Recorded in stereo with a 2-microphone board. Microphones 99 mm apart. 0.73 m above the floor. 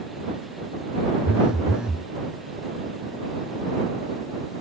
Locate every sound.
1.2 s a phone buzzing: 10° right (ahead or behind)